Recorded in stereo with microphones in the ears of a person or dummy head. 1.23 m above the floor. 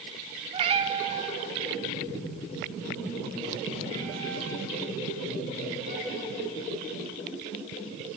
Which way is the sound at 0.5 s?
30° right (ahead or behind).